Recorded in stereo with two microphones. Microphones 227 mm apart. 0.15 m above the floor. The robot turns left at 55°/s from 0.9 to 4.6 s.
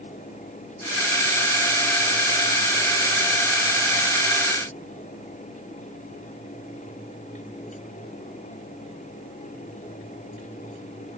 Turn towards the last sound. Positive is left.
No sound to turn to.